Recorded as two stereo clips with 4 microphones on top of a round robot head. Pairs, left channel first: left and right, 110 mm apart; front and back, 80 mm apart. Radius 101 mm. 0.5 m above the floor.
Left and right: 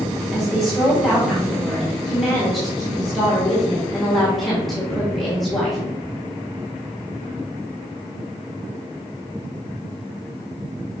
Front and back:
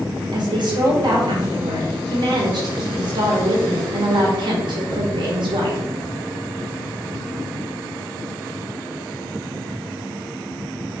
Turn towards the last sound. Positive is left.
turn(degrees=180)